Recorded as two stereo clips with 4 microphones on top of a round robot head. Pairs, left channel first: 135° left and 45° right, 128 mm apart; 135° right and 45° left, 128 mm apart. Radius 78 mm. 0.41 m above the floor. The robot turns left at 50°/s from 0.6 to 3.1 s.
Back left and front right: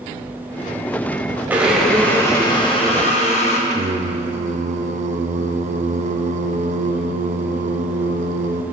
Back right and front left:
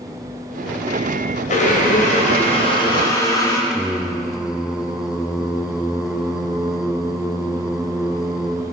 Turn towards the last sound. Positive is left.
turn(degrees=-40)